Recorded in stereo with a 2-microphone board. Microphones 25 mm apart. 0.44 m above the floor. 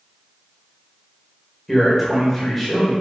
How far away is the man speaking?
About 1.8 m.